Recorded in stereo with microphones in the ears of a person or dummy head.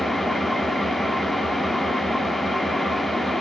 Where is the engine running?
5° left (ahead or behind), 1.7 m.